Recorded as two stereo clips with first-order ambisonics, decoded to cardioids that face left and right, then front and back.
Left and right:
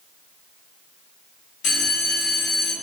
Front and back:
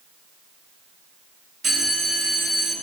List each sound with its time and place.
1.6 s a bell: 125° left, 1.2 m